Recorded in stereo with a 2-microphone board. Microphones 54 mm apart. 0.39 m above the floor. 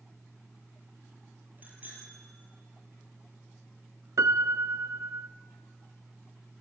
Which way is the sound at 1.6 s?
35° right (ahead or behind).